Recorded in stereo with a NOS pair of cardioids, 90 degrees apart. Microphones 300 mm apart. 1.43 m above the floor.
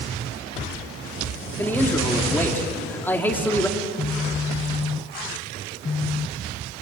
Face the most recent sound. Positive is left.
turn(degrees=20)